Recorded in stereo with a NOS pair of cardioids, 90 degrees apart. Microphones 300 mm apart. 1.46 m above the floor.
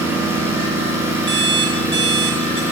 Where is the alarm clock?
35° right, 3 m.